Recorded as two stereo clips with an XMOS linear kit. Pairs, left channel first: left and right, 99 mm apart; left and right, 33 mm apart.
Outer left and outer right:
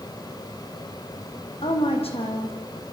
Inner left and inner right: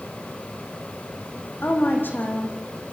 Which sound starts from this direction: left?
A woman speaking, at 1.6 s.